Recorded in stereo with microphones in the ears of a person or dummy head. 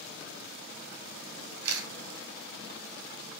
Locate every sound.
1.6 s a camera shutter: 60° right (ahead or behind), 1.0 m